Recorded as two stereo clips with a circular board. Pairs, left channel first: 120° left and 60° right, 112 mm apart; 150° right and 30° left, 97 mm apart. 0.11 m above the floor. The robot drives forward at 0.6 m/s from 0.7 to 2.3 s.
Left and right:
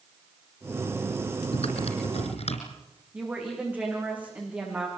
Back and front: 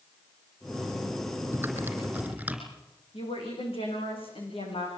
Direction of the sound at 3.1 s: 135° right.